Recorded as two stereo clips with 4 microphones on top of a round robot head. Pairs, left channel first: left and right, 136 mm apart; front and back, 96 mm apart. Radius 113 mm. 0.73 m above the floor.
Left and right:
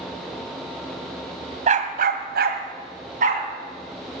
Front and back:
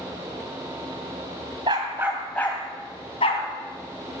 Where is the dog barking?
125° right, 1.5 m; by 3.4 s 45° right, 2 m.